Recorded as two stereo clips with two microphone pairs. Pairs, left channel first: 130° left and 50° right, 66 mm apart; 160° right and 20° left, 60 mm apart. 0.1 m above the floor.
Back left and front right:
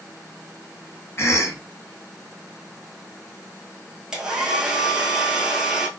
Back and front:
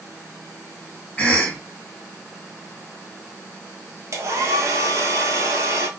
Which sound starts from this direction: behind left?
A cough, at 1.2 s.